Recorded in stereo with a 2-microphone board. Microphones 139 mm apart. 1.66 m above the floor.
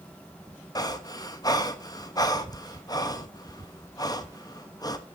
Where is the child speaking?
No child speaking in this recording.